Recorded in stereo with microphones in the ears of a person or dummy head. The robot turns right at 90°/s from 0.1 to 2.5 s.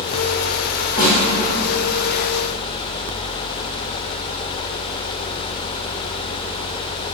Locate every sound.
1.0 s a snare drum: 10° right (ahead or behind), 1.6 m; by 1.2 s 25° right (ahead or behind), 1.6 m